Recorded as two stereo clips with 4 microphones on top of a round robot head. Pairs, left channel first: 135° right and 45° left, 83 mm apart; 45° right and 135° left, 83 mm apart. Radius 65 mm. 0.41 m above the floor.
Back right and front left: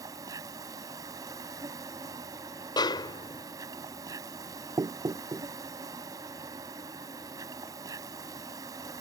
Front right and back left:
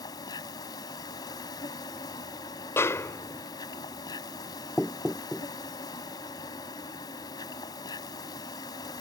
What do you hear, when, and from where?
0.0 s an insect: 5° right
2.8 s a snare drum: 105° right
4.8 s knocking: 35° left